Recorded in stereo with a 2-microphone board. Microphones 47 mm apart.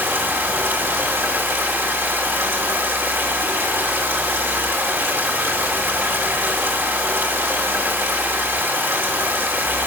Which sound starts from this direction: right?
Running water, at 0.0 s.